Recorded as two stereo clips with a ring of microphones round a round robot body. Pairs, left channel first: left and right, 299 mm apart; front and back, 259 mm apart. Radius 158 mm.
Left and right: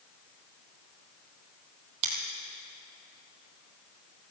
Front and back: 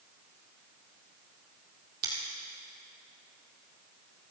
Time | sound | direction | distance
2.0 | scissors | 115° right | 2.5 m